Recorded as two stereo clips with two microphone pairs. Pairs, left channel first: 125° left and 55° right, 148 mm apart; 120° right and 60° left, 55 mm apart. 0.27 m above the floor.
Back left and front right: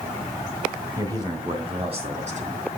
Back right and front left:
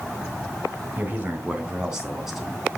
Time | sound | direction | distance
1.0 | a man speaking | 10° left | 2.5 m